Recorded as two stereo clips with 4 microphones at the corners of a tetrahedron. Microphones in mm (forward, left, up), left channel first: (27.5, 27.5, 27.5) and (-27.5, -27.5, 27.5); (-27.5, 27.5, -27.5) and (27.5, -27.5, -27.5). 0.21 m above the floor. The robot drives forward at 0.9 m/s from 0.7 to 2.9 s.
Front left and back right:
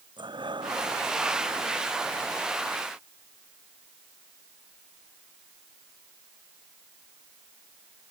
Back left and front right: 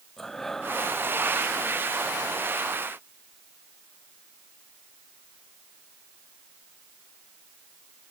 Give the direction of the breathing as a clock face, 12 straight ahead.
5 o'clock.